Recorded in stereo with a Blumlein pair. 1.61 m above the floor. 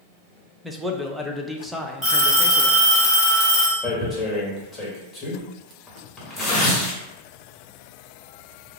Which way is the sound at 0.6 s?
5° right.